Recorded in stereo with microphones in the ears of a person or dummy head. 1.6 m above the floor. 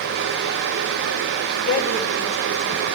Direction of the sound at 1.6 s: 80° left.